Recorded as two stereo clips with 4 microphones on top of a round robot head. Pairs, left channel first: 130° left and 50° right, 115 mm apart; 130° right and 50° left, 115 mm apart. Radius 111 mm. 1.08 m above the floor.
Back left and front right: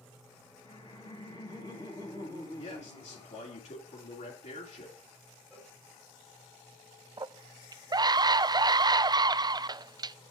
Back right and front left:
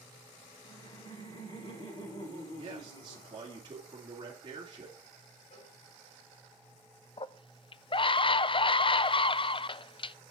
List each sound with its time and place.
0.6 s laughter: 170° right, 6 m
2.6 s a man speaking: 100° left, 2.5 m
5.5 s a cowbell: 150° right, 5.5 m
7.2 s a scream: 100° right, 0.5 m